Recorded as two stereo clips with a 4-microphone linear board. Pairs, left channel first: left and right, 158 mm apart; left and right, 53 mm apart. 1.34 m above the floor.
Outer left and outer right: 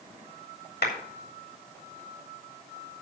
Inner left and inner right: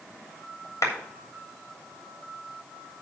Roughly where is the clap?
Left.